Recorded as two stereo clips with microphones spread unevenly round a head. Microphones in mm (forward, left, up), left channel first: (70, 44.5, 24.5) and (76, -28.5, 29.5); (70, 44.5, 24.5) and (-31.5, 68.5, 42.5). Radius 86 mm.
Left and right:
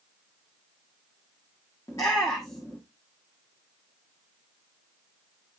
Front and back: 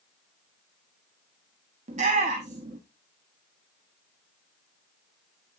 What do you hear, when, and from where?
1.9 s a shout: 165° left, 1.1 m